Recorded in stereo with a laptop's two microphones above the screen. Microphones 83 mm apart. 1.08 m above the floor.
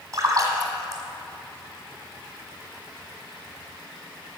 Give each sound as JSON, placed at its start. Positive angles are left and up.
{"t": 0.1, "sound": "a splash", "side_deg": -45, "distance_m": 1.8}